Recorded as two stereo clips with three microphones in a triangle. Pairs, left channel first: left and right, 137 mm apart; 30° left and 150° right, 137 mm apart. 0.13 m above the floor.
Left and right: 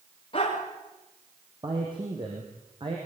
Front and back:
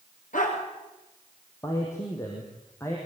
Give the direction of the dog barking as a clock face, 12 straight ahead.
11 o'clock.